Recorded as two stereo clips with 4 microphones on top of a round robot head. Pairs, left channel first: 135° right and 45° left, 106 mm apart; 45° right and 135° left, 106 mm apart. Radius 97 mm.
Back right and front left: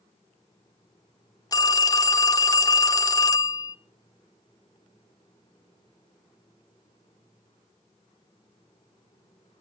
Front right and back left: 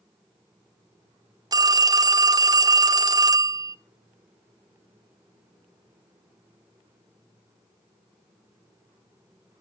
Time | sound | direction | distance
1.5 | a phone ringing | straight behind | 0.7 m